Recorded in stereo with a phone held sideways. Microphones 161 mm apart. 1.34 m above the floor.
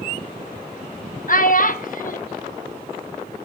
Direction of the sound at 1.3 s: 60° left (ahead or behind).